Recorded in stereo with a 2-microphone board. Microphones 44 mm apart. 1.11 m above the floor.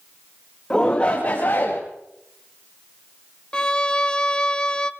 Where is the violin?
20° left (ahead or behind), 0.6 m.